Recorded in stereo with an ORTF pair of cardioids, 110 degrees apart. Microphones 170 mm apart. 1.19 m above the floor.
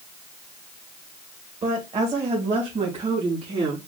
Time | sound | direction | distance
1.6 | a woman speaking | 35° right | 1.5 m